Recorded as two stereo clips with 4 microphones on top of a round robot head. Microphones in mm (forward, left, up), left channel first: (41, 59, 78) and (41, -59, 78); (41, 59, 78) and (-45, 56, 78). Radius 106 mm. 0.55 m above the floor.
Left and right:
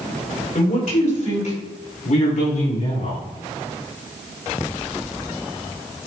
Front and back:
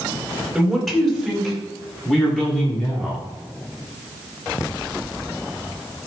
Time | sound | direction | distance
0.6 | a man speaking | 95° left | 4.5 m